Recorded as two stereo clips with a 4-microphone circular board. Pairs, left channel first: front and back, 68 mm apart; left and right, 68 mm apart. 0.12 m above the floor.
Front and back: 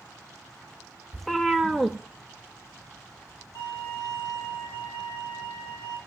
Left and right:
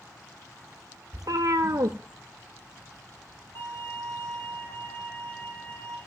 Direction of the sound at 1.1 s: 90° right.